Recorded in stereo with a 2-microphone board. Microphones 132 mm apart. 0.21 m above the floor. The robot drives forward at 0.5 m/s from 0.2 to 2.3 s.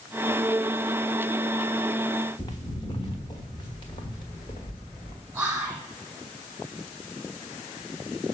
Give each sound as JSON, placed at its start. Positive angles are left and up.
{"t": 2.4, "sound": "footsteps", "side_deg": 30, "distance_m": 0.9}
{"t": 5.3, "sound": "whispering", "side_deg": -10, "distance_m": 1.2}